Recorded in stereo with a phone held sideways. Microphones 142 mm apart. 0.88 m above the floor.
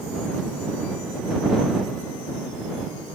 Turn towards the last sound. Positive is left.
No sound to turn to.